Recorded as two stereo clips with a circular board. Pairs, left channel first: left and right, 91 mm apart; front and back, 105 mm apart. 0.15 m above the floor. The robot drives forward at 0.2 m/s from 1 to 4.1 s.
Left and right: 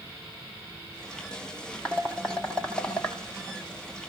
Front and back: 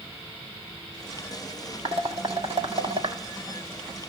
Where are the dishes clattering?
170° left, 3.5 m.